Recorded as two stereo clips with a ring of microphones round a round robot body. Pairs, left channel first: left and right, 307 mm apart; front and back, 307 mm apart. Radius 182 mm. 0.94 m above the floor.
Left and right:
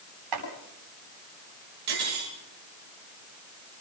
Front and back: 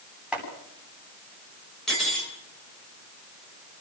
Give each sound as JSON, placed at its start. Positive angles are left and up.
{"t": 0.3, "sound": "chopping", "azimuth_deg": -95, "distance_m": 9.5}
{"t": 1.9, "sound": "cutlery clinking", "azimuth_deg": -90, "distance_m": 9.0}